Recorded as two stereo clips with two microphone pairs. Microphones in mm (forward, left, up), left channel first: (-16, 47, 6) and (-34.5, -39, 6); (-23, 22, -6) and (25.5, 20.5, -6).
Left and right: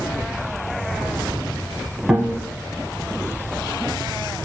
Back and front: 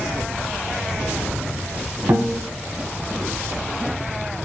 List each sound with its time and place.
2.1 s a guitar: 25° right, 0.9 m